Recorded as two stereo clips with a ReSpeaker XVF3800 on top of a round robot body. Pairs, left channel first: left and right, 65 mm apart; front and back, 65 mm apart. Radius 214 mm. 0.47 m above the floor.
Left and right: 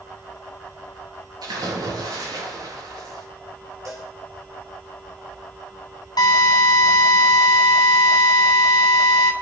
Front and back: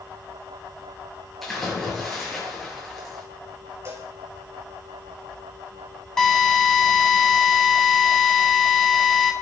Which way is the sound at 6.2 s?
80° left.